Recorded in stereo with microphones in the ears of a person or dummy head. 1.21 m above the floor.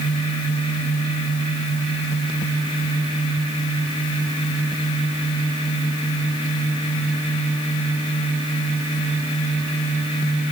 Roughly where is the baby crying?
No baby crying in this recording.